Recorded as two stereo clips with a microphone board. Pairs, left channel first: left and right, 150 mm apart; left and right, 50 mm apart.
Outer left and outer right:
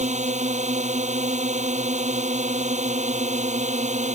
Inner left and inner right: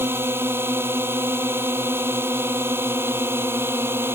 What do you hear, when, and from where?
0.0 s a drone: 50° right (ahead or behind)